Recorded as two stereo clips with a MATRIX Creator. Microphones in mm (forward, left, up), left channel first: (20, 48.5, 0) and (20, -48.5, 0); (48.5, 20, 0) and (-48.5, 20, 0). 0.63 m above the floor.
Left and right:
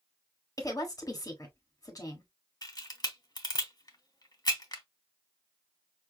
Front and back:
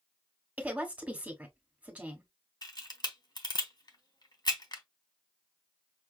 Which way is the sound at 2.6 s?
40° left.